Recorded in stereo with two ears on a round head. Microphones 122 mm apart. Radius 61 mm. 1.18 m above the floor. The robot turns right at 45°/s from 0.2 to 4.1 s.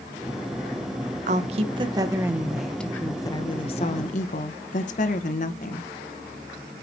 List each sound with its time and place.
1.3 s a woman speaking: 65° right, 0.9 m; by 5.9 s 65° left, 0.9 m